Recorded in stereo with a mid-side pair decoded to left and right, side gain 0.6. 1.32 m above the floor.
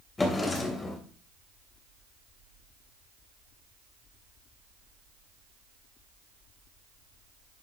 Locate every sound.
0.2 s a drawer: 20° left, 3 m